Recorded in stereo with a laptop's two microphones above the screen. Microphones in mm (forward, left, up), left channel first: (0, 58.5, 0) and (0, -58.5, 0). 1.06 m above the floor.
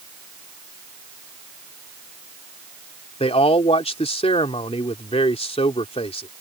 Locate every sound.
3.2 s a man speaking: 60° left (ahead or behind)